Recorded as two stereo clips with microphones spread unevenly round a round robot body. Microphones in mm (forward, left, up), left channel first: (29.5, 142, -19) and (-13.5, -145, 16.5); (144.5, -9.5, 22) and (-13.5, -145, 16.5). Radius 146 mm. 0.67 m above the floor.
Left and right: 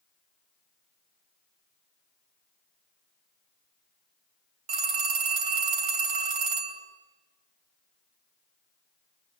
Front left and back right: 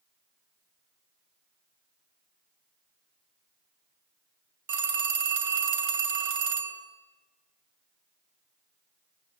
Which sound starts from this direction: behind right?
A phone ringing, at 4.7 s.